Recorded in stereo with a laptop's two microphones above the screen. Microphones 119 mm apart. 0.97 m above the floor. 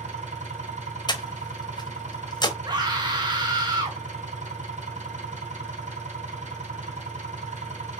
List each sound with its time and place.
0.0 s an engine running: 85° right, 3.5 m
1.1 s breathing: 35° left (ahead or behind), 0.9 m
2.6 s a scream: 35° right (ahead or behind), 1.3 m